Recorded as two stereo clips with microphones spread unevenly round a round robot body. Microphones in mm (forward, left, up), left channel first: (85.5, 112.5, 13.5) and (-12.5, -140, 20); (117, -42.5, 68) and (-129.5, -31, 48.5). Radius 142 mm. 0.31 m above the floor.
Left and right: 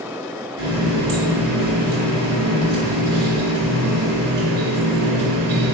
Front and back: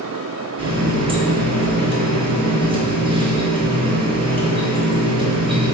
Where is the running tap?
115° right, 1.7 m.